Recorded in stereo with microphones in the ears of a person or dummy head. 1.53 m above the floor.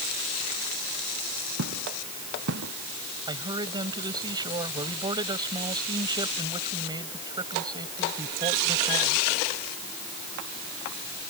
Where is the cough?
I don't hear a cough.